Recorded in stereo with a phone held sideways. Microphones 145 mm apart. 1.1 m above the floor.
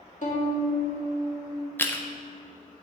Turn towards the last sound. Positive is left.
turn(degrees=15)  # may be behind; listen again after turning